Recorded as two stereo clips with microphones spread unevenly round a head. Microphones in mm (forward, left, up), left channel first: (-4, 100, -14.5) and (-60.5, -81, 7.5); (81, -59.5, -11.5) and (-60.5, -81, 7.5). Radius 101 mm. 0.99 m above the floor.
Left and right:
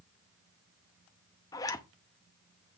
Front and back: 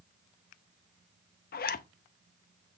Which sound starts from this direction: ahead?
A zipper, at 1.5 s.